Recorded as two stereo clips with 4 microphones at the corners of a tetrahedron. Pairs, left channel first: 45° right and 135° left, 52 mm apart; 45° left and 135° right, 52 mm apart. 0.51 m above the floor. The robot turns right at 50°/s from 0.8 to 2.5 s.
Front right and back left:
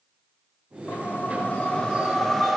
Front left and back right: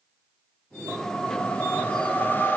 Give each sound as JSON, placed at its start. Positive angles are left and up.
{"t": 0.9, "sound": "a whoosh", "azimuth_deg": -35, "distance_m": 0.8}